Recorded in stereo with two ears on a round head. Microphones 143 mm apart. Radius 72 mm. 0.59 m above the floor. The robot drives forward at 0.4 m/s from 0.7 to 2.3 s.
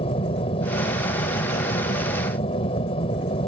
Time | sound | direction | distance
0.0 | an aircraft | 35° left (ahead or behind) | ?